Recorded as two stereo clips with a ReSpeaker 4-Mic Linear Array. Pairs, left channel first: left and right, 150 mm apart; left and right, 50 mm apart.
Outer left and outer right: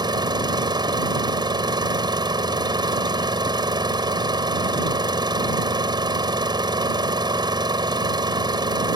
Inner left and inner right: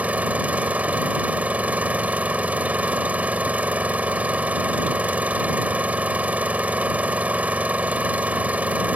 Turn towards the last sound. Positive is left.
turn(degrees=-30)  # may be behind; listen again after turning